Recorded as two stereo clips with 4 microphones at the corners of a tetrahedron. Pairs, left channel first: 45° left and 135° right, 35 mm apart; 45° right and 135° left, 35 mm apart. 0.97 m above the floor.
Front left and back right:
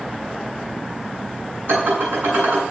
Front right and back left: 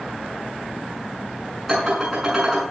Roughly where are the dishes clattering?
Behind right.